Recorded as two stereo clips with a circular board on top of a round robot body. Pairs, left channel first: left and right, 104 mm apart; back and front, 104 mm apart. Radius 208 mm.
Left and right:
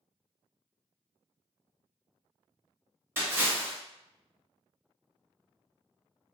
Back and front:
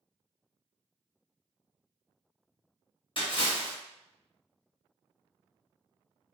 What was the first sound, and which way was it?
A splash, 155° right.